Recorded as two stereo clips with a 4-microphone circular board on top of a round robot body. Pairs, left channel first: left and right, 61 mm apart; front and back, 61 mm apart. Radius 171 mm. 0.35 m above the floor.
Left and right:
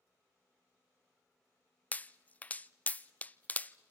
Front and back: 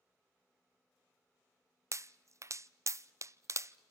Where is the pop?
150° left, 0.6 m.